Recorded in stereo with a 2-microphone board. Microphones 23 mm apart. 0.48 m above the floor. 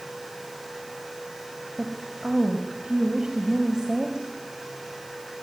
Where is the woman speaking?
35° right (ahead or behind), 2.5 m.